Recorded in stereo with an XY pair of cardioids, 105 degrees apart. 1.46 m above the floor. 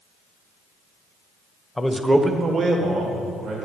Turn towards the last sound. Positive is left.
turn(degrees=-70)